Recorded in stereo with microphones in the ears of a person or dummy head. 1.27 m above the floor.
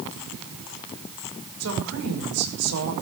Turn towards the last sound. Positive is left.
turn(degrees=-85)